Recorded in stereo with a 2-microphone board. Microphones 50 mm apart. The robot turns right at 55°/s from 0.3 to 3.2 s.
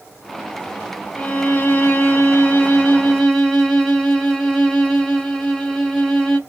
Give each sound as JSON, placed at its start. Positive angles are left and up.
{"t": 1.1, "sound": "a violin", "azimuth_deg": 45, "distance_m": 0.8}